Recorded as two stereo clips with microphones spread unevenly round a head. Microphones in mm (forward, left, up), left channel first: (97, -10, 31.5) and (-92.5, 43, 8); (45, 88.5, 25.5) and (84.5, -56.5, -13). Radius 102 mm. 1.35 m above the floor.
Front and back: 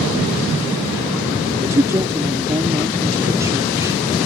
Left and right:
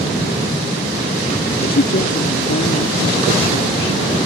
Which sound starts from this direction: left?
A woman speaking, at 1.6 s.